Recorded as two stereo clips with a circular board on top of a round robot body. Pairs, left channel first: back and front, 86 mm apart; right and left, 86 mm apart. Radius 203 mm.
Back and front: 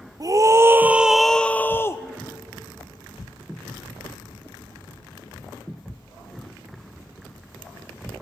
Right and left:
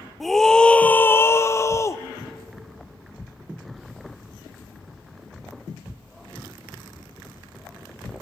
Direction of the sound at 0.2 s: Straight ahead.